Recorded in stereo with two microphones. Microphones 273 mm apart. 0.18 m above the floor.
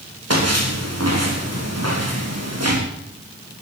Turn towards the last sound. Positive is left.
turn(degrees=-65)  # may be behind; listen again after turning